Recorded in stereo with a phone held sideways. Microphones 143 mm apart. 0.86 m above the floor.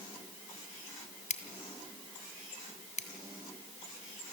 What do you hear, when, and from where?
1.3 s scissors: 55° left (ahead or behind), 2.5 m